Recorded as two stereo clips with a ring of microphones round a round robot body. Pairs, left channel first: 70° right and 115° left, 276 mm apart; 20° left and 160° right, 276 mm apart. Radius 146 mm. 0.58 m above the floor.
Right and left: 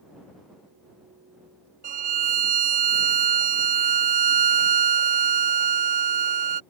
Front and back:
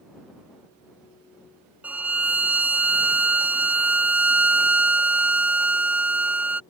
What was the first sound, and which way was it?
A violin, 120° left.